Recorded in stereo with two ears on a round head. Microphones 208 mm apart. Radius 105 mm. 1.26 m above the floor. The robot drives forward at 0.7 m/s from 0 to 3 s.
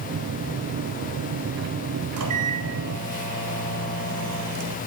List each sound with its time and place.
2.2 s a microwave: 70° right (ahead or behind), 3.5 m; by 4.8 s 80° right, 3.5 m